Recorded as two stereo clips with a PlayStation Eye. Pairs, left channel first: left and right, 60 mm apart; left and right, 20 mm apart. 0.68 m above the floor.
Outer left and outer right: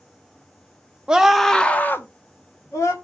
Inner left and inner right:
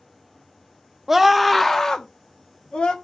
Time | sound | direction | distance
1.1 | a scream | 15° right (ahead or behind) | 0.9 m